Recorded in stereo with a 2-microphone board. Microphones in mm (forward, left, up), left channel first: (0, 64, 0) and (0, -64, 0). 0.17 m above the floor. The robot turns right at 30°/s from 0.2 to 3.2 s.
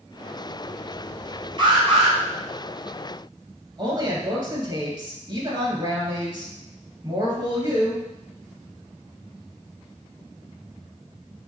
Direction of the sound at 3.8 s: 35° right (ahead or behind).